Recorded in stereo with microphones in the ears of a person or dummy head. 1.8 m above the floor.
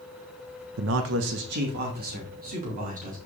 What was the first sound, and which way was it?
A man speaking, 80° right.